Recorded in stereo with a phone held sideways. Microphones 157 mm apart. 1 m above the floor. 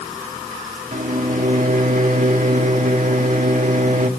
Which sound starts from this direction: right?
A microwave, at 0.9 s.